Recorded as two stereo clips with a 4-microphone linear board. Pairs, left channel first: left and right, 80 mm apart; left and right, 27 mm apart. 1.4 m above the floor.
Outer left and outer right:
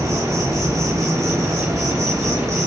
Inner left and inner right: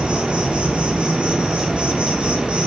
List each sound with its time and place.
0.0 s an insect: 40° right (ahead or behind), 0.8 m